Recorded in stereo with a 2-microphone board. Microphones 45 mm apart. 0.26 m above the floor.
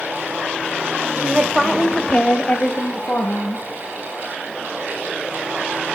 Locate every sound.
1.2 s a woman speaking: 20° right (ahead or behind), 1.2 m; by 3.6 s 45° left (ahead or behind), 1.9 m